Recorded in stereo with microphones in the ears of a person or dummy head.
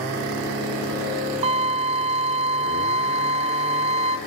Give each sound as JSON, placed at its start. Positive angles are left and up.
{"t": 1.4, "sound": "a violin", "side_deg": -35, "distance_m": 1.1}